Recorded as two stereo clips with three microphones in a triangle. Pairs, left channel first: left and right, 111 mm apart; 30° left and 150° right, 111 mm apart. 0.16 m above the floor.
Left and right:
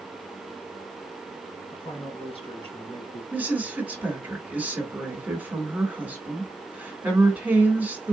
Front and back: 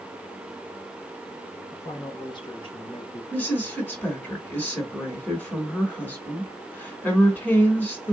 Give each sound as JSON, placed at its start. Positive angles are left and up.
{"t": 1.7, "sound": "a man speaking", "azimuth_deg": 85, "distance_m": 2.5}
{"t": 3.3, "sound": "a woman speaking", "azimuth_deg": -30, "distance_m": 1.9}